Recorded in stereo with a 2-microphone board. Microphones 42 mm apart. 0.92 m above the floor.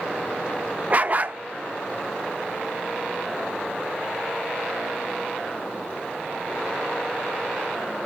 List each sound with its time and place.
0.9 s a dog barking: 35° right (ahead or behind), 0.5 m